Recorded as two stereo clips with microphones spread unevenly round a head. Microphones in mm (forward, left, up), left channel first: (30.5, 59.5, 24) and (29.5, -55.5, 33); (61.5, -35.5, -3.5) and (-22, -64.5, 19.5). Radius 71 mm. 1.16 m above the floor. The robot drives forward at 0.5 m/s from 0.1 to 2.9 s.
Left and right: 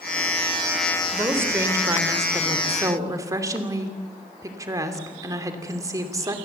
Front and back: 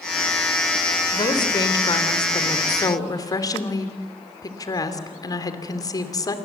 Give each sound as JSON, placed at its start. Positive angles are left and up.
{"t": 1.1, "sound": "a woman speaking", "azimuth_deg": -20, "distance_m": 3.5}